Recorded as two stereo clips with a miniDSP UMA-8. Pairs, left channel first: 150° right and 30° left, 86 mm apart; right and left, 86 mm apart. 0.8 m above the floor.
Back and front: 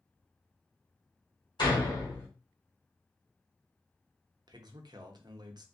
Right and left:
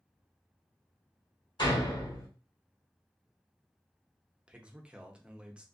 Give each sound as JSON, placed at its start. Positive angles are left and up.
{"t": 1.6, "sound": "a door slam", "azimuth_deg": -120, "distance_m": 1.5}
{"t": 4.5, "sound": "a man speaking", "azimuth_deg": 15, "distance_m": 0.6}